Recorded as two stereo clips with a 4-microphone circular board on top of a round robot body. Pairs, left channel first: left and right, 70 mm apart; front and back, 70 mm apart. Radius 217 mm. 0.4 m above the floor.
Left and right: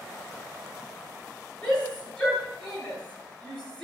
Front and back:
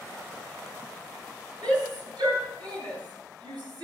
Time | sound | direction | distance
1.6 | a shout | 170° left | 10 m